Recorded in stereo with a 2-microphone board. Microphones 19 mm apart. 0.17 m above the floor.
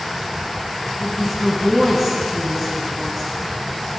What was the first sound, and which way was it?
A woman speaking, 10° right (ahead or behind).